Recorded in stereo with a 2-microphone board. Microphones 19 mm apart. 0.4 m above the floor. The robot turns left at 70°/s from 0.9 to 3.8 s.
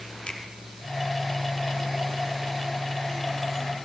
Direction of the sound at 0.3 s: 50° left (ahead or behind).